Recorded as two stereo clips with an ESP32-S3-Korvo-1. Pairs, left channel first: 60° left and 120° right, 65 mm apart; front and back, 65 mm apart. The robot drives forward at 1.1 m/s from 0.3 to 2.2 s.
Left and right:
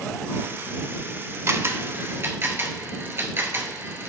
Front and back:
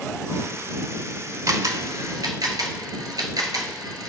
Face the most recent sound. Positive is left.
turn(degrees=-170)